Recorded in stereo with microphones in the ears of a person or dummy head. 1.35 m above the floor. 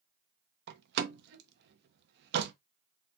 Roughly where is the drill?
I don't hear a drill.